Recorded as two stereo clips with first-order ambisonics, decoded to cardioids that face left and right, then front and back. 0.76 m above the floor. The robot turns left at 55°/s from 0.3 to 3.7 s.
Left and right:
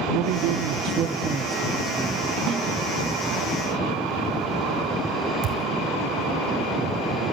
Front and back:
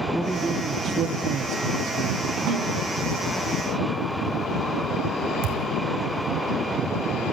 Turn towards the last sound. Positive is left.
turn(degrees=-145)